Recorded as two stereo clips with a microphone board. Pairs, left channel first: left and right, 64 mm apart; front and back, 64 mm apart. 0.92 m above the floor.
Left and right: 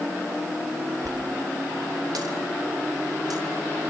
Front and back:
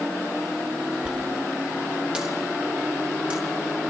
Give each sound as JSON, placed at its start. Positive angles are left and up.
{"t": 1.0, "sound": "a dropped coin", "azimuth_deg": -105, "distance_m": 3.0}